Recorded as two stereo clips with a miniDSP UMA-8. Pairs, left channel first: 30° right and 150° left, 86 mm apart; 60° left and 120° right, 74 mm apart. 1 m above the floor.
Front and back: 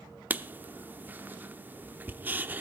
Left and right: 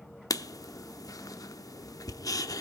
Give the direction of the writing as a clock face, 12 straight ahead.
9 o'clock.